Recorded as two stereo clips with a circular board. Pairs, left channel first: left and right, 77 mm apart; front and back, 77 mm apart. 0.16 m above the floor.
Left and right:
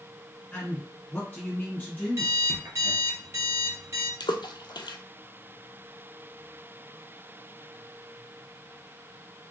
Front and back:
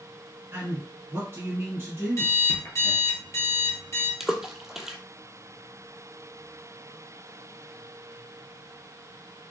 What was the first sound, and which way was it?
A man speaking, 145° left.